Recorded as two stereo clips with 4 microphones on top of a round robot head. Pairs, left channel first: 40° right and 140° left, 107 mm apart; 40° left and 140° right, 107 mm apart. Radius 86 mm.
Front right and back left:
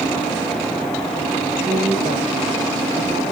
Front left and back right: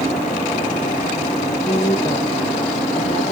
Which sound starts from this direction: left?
A woman speaking, at 1.6 s.